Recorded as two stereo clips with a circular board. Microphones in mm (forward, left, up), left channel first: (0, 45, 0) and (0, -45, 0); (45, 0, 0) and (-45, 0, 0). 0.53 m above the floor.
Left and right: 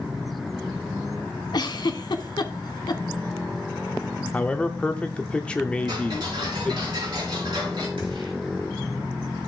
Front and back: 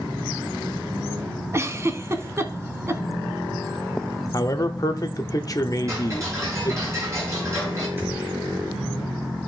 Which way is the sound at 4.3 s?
20° left.